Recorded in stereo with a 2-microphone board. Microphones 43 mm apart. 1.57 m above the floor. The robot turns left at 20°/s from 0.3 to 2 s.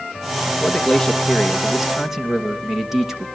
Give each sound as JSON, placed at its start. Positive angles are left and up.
{"t": 0.5, "sound": "a man speaking", "azimuth_deg": 20, "distance_m": 2.5}